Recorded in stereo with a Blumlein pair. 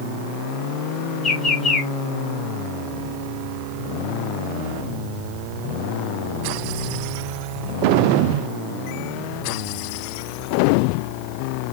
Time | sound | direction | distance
1.2 | a bird | 15° left | 1.2 m